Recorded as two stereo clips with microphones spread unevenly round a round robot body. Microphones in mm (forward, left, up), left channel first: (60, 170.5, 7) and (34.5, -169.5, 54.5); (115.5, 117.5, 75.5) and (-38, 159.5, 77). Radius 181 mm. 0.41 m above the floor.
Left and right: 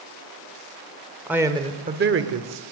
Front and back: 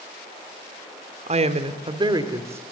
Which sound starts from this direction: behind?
A woman speaking, at 1.3 s.